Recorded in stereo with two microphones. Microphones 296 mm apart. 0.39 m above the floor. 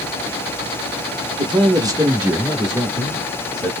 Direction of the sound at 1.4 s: 15° right (ahead or behind).